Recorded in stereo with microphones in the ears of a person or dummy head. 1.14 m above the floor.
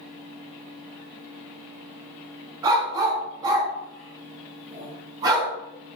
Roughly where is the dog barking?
Right.